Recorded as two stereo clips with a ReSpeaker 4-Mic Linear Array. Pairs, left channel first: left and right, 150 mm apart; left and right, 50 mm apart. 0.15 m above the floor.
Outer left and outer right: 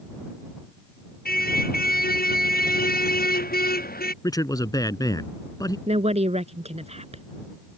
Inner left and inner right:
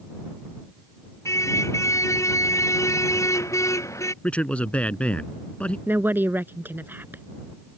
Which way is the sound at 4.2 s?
25° left (ahead or behind).